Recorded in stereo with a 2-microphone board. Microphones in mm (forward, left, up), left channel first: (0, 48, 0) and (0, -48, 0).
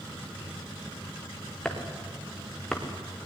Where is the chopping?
10° left (ahead or behind), 3.5 m.